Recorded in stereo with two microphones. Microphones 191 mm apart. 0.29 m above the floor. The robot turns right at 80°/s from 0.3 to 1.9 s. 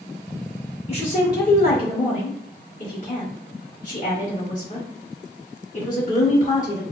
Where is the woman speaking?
35° left (ahead or behind), 1.7 m; by 6.8 s 45° left (ahead or behind), 1.7 m.